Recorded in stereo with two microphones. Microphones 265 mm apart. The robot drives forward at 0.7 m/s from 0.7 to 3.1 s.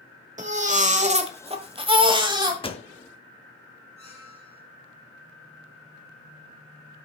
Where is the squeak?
25° left (ahead or behind), 5.5 m.